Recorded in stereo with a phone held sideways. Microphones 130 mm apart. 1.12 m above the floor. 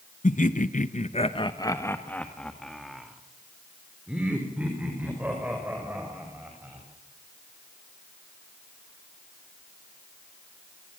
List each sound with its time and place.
0.2 s laughter: 70° left (ahead or behind), 1.1 m; by 6.9 s 15° right (ahead or behind), 6 m